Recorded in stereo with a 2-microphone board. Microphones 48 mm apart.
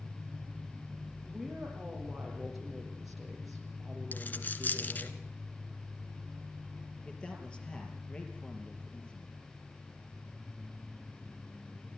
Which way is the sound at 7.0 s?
20° left (ahead or behind).